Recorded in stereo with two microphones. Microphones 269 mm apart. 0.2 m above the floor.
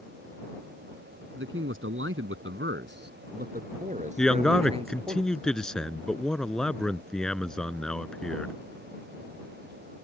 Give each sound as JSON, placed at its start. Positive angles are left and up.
{"t": 1.4, "sound": "a man speaking", "side_deg": -50}
{"t": 4.2, "sound": "a man speaking", "side_deg": 5}